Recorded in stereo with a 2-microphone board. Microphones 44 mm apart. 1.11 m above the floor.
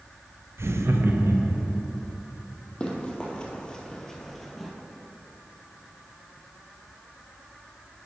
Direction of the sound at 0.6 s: 75° right (ahead or behind).